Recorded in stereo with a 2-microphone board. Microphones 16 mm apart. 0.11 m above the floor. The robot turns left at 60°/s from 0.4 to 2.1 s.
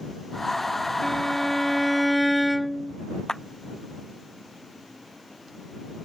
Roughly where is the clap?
Left.